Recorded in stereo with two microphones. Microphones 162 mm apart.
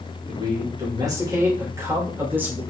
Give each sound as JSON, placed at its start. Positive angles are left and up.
{"t": 0.3, "sound": "a man speaking", "side_deg": -30, "distance_m": 4.0}